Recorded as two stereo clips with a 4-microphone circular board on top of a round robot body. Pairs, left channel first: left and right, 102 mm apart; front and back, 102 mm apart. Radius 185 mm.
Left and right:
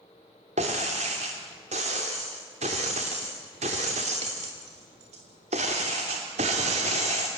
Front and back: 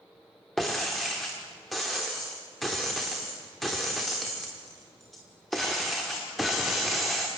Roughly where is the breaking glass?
Right.